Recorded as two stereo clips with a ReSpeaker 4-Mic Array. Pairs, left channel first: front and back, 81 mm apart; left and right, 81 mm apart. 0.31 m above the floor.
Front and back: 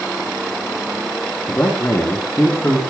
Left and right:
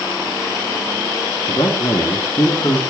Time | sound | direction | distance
1.5 | a man speaking | 55° left | 3 m